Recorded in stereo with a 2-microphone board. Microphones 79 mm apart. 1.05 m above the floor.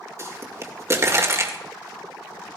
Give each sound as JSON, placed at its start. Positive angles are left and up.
{"t": 0.2, "sound": "a pop", "side_deg": -40, "distance_m": 2.0}